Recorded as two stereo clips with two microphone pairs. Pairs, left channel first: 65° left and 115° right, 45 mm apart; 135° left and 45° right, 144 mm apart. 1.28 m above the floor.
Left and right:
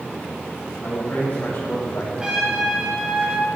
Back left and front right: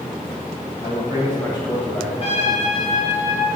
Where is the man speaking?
75° left, 3 m.